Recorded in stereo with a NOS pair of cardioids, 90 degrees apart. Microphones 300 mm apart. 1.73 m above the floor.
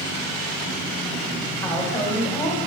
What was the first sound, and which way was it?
A woman speaking, 10° left.